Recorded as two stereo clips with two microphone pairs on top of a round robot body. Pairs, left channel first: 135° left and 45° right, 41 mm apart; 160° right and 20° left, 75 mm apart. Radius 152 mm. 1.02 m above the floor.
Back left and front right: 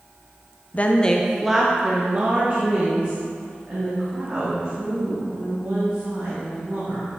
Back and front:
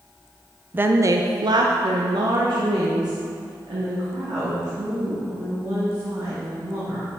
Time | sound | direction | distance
0.7 | a woman speaking | 85° left | 0.6 m